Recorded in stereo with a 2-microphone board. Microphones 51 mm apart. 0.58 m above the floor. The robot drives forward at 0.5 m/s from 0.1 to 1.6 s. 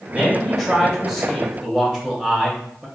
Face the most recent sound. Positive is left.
turn(degrees=-10)  # may be behind; listen again after turning